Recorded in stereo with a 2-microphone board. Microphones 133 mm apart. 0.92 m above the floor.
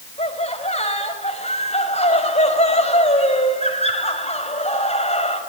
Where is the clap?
No clap in this recording.